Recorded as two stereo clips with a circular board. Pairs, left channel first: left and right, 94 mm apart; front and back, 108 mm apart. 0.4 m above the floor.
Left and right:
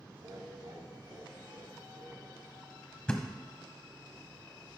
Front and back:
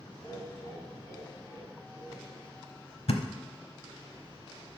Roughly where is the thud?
Ahead.